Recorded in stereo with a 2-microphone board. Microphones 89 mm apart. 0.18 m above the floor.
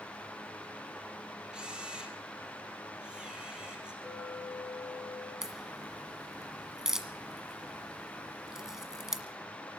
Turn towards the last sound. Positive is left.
turn(degrees=-5)  # may be behind; listen again after turning